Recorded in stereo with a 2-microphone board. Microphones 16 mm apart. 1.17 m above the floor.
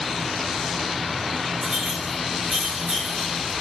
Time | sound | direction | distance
1.6 | a clink | 35° right (ahead or behind) | 1.1 m